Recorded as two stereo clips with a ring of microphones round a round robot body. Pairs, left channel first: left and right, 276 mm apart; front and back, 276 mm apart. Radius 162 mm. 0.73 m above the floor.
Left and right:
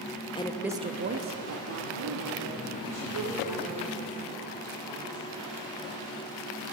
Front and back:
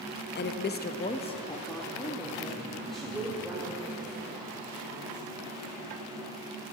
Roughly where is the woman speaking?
Ahead left.